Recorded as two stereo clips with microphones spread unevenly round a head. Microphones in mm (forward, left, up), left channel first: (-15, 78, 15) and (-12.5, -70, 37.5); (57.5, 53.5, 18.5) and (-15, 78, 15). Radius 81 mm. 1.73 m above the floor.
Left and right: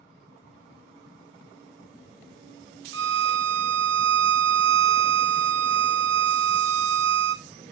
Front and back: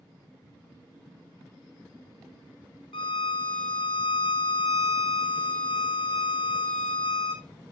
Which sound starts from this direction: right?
A violin, at 2.9 s.